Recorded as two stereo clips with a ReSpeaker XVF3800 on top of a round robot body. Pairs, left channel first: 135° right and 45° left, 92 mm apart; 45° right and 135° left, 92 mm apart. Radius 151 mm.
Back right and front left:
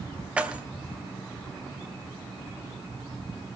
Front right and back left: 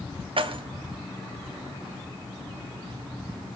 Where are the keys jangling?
120° left, 2 m.